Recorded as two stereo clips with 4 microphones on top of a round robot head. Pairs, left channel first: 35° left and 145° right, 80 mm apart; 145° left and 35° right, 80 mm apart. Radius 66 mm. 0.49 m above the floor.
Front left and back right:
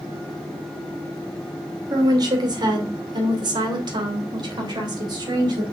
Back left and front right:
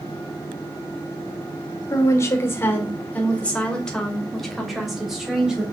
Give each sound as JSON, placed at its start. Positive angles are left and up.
{"t": 1.9, "sound": "a woman speaking", "azimuth_deg": -170, "distance_m": 2.0}